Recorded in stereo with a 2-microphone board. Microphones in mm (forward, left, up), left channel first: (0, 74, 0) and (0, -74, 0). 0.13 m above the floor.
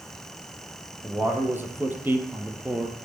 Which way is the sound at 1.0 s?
15° right (ahead or behind).